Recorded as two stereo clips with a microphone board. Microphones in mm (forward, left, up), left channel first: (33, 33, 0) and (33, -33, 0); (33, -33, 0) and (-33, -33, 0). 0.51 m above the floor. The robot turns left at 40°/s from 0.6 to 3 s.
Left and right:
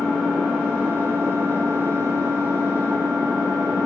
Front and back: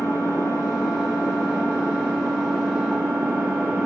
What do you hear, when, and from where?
0.0 s an engine running: 10° right, 3.5 m; by 3.9 s 105° right, 3.5 m